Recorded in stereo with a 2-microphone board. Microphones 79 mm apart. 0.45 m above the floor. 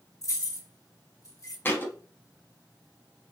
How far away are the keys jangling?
About 0.9 m.